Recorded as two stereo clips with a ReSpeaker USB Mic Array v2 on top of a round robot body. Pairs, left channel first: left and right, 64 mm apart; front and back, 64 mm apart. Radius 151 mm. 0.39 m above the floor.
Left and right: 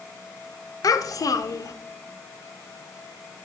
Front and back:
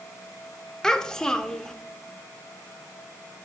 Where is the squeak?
No squeak in this recording.